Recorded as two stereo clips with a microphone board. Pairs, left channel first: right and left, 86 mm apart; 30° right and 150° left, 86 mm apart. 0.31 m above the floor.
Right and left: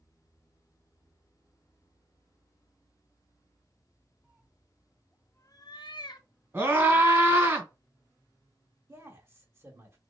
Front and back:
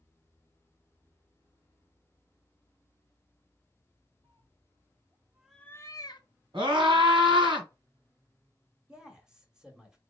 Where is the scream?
150° left, 2.5 m.